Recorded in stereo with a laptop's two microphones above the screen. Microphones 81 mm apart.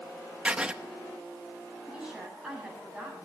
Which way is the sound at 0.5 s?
15° right (ahead or behind).